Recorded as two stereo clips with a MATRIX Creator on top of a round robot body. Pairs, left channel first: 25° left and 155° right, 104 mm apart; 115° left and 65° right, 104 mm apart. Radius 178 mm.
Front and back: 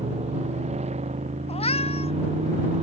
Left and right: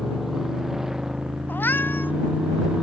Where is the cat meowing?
40° left.